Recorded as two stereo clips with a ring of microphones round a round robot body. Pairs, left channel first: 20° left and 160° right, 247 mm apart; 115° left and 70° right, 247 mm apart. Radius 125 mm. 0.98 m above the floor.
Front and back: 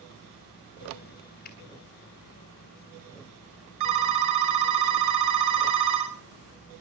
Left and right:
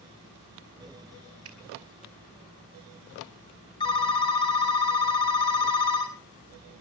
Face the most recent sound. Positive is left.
turn(degrees=-175)